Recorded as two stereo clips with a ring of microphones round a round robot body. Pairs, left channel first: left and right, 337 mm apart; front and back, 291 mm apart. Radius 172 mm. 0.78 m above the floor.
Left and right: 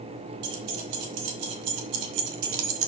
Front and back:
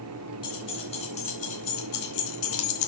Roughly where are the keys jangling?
Right.